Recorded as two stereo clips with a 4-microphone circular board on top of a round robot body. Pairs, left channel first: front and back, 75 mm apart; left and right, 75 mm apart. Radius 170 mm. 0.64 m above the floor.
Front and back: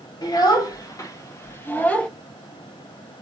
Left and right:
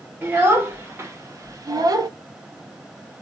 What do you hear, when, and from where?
0.2 s a child speaking: 30° right, 1.7 m; by 2.1 s 75° right, 1.0 m